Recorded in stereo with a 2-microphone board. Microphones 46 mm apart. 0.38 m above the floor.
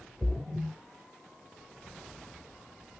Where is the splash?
5° right (ahead or behind), 0.7 m.